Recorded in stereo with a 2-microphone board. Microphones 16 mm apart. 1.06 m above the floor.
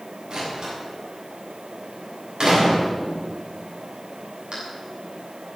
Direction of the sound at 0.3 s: 55° right (ahead or behind).